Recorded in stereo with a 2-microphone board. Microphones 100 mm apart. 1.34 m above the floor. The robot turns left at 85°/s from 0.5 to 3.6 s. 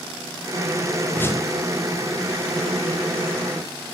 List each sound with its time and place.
1.1 s a whoosh: 10° left (ahead or behind), 1.2 m; by 1.5 s 40° left (ahead or behind), 1.2 m